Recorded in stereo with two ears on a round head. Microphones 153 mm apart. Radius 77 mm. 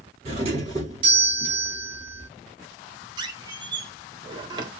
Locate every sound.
0.2 s a doorbell: 30° right (ahead or behind), 4 m
3.2 s a squeak: 25° right (ahead or behind), 1.4 m